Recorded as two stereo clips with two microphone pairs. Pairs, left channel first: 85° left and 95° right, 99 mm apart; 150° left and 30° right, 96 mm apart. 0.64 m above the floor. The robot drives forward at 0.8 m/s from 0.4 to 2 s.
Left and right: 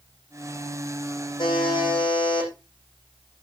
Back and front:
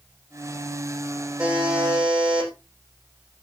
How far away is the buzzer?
About 9 m.